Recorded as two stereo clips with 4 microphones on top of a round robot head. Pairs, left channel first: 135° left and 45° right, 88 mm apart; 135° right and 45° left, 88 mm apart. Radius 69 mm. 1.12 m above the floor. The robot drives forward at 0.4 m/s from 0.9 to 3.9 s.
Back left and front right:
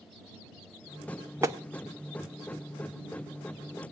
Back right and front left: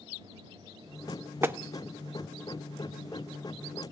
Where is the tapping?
5° right, 0.7 m; by 1.6 s 10° right, 0.7 m.